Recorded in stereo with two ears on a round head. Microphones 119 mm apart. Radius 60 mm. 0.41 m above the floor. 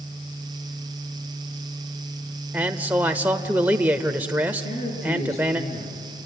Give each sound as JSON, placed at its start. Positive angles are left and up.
{"t": 2.5, "sound": "a man speaking", "side_deg": -10, "distance_m": 1.0}
{"t": 4.6, "sound": "a man speaking", "side_deg": 55, "distance_m": 8.0}